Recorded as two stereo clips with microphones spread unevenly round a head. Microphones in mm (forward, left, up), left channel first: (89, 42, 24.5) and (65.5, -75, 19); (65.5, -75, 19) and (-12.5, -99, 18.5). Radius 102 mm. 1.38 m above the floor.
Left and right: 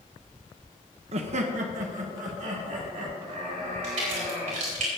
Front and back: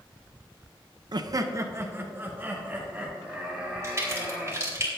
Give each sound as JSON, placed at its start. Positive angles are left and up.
{"t": 1.1, "sound": "laughter", "azimuth_deg": -135, "distance_m": 0.7}
{"t": 3.8, "sound": "a crack", "azimuth_deg": -110, "distance_m": 4.5}